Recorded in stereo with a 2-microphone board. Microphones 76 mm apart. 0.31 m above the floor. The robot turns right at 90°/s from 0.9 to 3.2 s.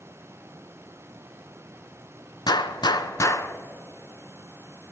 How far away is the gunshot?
About 0.5 m.